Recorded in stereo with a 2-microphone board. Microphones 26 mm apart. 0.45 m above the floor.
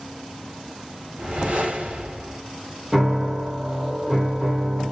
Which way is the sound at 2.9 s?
20° right (ahead or behind).